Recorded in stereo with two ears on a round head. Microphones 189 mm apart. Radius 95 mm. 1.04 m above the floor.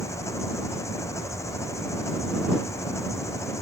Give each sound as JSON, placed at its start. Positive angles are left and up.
{"t": 0.0, "sound": "an engine running", "side_deg": 15}